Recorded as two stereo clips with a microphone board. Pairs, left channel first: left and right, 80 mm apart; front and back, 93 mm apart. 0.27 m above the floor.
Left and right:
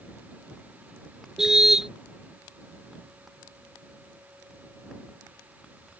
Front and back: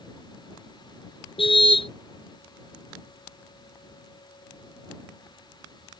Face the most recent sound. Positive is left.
turn(degrees=-5)